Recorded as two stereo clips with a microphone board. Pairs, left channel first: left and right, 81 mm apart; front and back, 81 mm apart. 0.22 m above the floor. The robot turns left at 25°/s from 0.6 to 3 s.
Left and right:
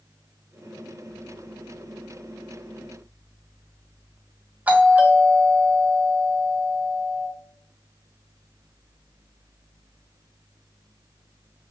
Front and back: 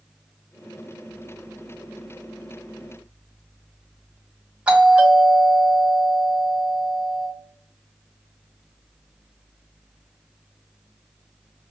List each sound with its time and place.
4.7 s a doorbell: 125° right, 1.4 m